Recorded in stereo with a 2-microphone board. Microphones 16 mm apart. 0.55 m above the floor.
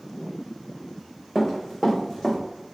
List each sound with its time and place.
1.4 s running footsteps: 25° left (ahead or behind), 1.8 m; by 2.4 s 45° left (ahead or behind), 1.3 m